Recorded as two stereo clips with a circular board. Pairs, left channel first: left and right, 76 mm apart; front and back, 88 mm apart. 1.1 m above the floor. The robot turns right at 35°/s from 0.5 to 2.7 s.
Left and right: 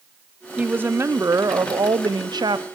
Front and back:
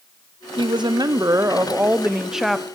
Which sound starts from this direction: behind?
A woman speaking, at 0.6 s.